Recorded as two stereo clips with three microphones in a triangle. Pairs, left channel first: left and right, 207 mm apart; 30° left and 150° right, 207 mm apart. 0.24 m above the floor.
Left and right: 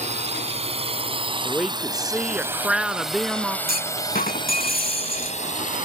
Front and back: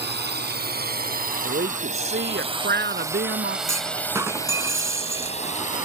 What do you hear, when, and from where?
0.0 s a drone: 140° right; by 5.8 s 60° left
1.4 s a woman speaking: 175° right
3.7 s a clunk: 135° left